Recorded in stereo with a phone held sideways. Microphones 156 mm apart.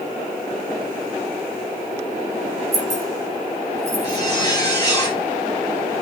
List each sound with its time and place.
2.7 s keys jangling: 20° right (ahead or behind), 3.5 m
4.0 s a zipper: 25° left (ahead or behind), 3.5 m